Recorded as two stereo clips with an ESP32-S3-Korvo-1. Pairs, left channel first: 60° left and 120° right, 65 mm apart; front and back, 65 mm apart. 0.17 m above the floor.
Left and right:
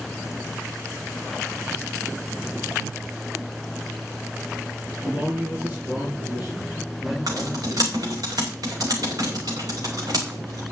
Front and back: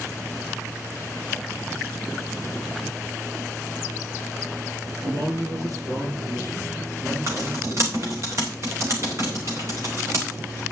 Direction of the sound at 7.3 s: 135° right.